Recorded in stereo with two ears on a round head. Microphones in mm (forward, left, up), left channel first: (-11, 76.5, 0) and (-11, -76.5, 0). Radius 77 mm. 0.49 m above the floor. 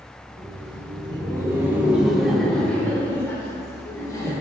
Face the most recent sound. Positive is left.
turn(degrees=25)  # may be behind; listen again after turning